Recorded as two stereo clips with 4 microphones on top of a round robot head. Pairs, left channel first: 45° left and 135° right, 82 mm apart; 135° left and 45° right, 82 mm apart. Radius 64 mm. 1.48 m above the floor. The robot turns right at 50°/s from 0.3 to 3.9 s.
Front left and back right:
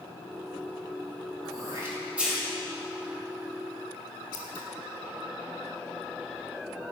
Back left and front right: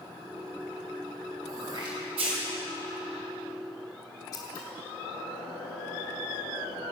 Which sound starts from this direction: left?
Scissors, at 4.3 s.